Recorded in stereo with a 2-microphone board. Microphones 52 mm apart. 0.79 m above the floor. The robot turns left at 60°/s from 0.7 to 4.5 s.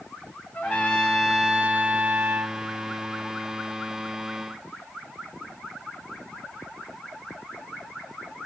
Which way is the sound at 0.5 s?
30° left.